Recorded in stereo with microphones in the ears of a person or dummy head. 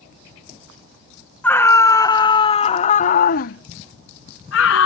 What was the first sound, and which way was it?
A scream, 10° left (ahead or behind).